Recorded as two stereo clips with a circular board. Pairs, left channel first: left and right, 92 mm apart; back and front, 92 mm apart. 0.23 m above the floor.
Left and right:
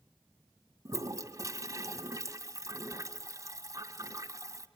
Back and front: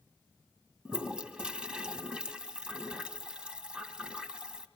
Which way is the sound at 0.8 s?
75° right.